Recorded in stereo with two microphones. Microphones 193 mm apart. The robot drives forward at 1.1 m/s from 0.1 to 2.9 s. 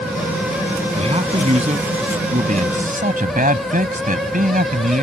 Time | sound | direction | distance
0.9 | a man speaking | 30° right (ahead or behind) | ?